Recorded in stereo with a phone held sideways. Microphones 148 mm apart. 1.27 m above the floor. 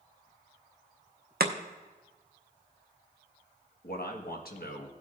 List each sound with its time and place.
1.4 s chopping: 80° right, 0.7 m
3.8 s a man speaking: 75° left (ahead or behind), 1.4 m